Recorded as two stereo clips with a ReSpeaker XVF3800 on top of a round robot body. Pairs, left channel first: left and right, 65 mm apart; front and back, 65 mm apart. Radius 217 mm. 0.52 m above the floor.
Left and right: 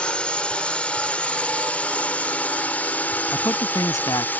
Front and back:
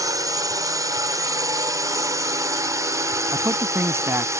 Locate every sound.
0.0 s a drone: 165° left; by 4.4 s 150° left
3.3 s a man speaking: 130° left